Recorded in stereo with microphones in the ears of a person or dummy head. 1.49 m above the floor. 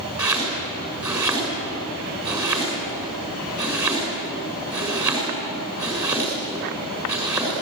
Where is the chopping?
20° right (ahead or behind), 6 m.